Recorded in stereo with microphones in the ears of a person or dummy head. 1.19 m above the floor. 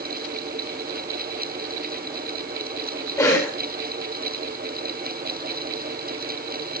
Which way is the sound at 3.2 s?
20° left (ahead or behind).